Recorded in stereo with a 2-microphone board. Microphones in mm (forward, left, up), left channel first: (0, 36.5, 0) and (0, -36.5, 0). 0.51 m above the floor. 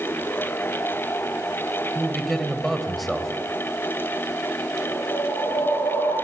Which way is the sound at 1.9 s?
Centre (ahead or behind).